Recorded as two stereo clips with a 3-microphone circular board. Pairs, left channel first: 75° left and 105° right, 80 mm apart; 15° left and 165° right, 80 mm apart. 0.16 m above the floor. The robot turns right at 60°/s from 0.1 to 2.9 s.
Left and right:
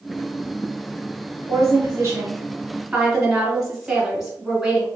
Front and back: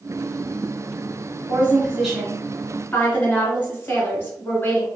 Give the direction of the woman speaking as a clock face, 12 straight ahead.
4 o'clock.